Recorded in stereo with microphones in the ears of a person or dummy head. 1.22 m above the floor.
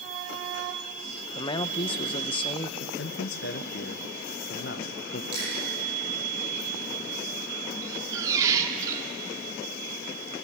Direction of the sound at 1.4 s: 25° left (ahead or behind).